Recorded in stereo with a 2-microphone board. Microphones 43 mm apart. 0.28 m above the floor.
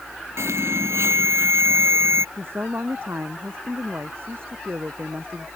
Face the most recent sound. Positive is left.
turn(degrees=-60)  # may be behind; listen again after turning